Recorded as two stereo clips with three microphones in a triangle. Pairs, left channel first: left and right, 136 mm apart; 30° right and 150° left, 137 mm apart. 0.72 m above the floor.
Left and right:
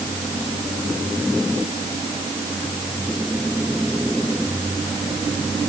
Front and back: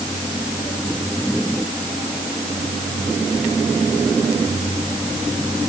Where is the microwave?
I don't hear a microwave.